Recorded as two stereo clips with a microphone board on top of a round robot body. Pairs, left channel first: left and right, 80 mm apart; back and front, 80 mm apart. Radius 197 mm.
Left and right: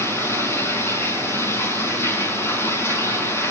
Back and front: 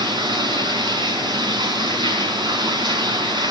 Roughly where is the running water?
Ahead left.